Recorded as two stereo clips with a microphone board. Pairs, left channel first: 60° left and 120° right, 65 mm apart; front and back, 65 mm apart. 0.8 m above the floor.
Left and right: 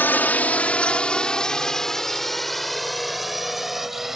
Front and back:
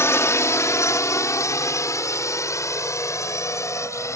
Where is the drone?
15° left; by 4.2 s 35° right.